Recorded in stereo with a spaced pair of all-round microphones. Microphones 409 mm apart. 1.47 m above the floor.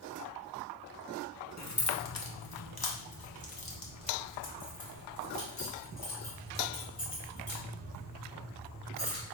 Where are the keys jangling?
40° left (ahead or behind), 0.8 m; by 9.2 s 30° left (ahead or behind), 4 m.